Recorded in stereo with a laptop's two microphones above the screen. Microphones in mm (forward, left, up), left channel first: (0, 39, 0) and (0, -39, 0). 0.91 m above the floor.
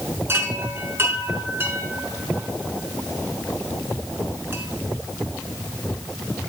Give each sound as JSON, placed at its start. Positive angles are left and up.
{"t": 0.3, "sound": "a chime", "side_deg": -30, "distance_m": 5.5}